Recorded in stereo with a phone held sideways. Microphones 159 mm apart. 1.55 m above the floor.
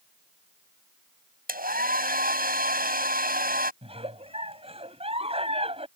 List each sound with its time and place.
1.5 s a hair dryer: 65° right (ahead or behind)
3.8 s a giggle: 40° right (ahead or behind)